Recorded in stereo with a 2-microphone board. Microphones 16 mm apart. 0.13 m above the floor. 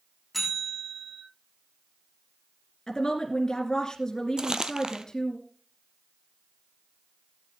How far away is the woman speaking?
About 2 m.